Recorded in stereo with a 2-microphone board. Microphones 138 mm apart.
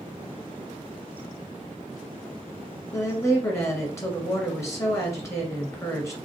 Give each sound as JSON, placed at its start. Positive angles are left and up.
{"t": 2.9, "sound": "a woman speaking", "side_deg": 20, "distance_m": 1.8}